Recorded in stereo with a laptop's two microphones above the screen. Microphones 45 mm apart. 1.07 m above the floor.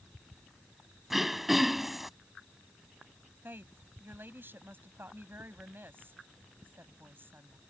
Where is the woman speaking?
50° right (ahead or behind).